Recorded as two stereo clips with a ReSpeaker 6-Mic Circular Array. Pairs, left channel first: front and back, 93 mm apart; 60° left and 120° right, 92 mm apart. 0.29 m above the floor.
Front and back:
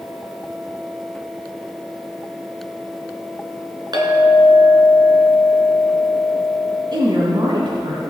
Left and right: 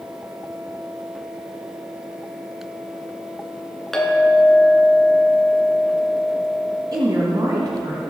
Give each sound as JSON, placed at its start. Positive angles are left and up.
{"t": 3.9, "sound": "a clink", "azimuth_deg": 145, "distance_m": 2.0}
{"t": 6.9, "sound": "a woman speaking", "azimuth_deg": -155, "distance_m": 2.0}